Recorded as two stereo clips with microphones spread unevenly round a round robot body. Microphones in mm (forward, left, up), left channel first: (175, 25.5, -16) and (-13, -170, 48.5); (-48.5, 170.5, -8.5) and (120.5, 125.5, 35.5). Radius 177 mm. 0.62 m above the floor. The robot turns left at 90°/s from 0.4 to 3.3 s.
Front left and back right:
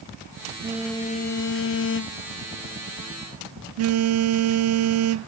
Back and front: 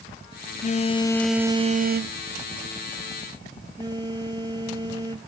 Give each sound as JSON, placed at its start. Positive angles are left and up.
{"t": 0.6, "sound": "a phone buzzing", "azimuth_deg": 145}